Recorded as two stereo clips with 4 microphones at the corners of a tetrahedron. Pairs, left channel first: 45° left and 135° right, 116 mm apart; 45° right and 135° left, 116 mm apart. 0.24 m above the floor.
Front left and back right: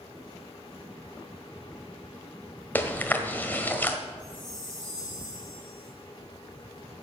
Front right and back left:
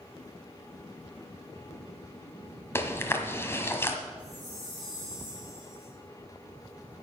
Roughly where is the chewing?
Ahead.